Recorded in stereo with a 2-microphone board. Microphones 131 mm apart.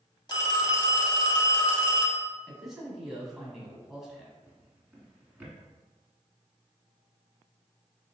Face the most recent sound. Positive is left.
turn(degrees=-15)  # may be behind; listen again after turning